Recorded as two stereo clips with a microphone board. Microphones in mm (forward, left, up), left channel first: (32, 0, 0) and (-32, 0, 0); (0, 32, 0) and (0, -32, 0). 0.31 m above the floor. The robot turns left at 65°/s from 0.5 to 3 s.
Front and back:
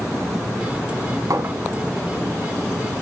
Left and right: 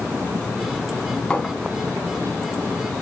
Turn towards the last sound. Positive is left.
turn(degrees=55)